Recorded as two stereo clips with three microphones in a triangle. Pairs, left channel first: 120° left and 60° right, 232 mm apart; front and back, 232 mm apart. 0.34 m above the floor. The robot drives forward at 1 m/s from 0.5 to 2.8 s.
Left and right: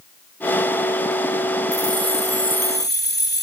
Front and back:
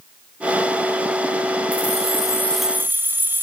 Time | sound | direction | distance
1.7 | keys jangling | 45° left | 1.5 m